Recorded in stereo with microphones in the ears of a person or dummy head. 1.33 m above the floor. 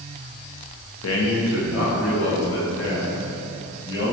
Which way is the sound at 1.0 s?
80° left.